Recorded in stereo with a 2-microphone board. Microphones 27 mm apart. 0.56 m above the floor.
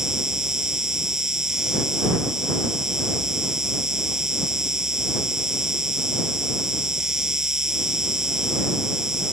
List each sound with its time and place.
0.0 s an insect: 15° right (ahead or behind)